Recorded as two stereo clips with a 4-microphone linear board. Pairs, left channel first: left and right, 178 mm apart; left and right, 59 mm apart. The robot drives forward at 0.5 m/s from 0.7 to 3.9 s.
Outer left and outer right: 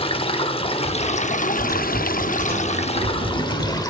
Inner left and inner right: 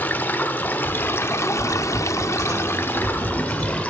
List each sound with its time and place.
0.0 s running water: 30° left (ahead or behind), 0.8 m; by 3.9 s 20° left (ahead or behind), 1.1 m
1.6 s typing on a keyboard: 60° right (ahead or behind), 7.5 m; by 3.8 s 55° right (ahead or behind), 8 m